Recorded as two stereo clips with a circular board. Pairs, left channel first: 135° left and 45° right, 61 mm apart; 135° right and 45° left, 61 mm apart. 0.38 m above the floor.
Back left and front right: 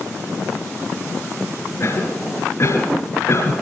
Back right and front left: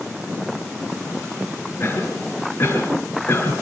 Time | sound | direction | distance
1.8 | a cough | 175° left | 5.5 m